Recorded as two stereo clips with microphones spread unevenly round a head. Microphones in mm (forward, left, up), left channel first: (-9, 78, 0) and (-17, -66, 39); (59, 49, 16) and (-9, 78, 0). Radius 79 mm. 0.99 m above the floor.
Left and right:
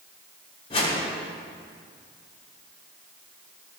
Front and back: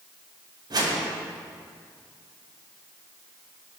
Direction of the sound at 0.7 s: 140° left.